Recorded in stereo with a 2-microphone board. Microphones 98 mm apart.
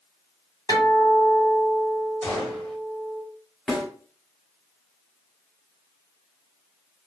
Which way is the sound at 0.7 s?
40° left (ahead or behind).